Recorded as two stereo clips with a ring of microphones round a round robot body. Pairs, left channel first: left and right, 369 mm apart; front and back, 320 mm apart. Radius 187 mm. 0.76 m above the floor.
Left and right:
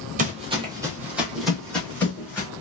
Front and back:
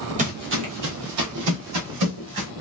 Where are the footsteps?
135° right, 0.8 m; by 2.5 s 175° left, 1.9 m.